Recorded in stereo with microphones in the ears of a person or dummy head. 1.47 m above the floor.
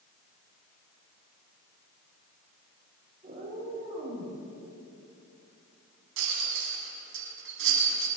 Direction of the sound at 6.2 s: 80° right.